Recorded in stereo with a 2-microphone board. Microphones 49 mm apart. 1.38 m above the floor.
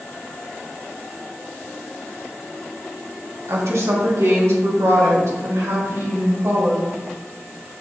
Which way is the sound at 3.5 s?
70° right (ahead or behind).